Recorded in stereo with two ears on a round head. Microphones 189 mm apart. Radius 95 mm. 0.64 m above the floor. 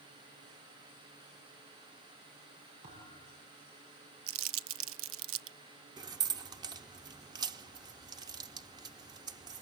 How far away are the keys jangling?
About 0.7 m.